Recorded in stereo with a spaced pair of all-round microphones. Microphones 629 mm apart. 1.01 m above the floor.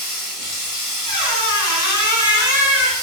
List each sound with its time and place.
0.0 s running water: 40° left (ahead or behind), 1.5 m
1.1 s a squeak: 30° left (ahead or behind), 1.2 m